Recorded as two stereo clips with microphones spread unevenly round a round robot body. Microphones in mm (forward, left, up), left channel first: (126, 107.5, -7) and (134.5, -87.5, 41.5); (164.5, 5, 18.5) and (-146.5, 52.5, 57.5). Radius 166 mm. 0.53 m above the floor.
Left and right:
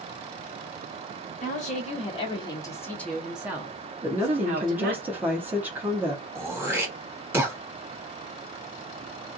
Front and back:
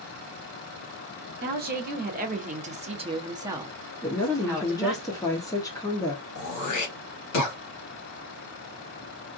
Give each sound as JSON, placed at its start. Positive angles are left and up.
{"t": 1.4, "sound": "a woman speaking", "azimuth_deg": 110, "distance_m": 1.4}
{"t": 4.0, "sound": "a woman speaking", "azimuth_deg": 15, "distance_m": 0.8}
{"t": 6.3, "sound": "throat clearing", "azimuth_deg": 0, "distance_m": 1.6}